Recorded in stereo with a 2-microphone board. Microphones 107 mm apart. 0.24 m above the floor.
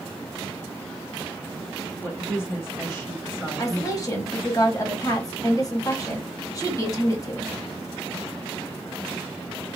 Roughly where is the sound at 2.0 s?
Left.